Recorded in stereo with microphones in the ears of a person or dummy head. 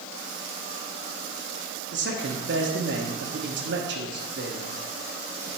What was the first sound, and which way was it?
A man speaking, 60° right (ahead or behind).